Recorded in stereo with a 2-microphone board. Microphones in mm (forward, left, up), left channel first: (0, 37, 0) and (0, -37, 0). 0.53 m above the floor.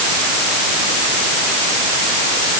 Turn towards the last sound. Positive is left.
No sound to turn to.